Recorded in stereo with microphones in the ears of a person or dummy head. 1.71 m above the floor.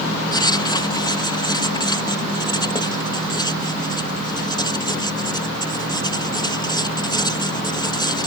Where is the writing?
25° left (ahead or behind).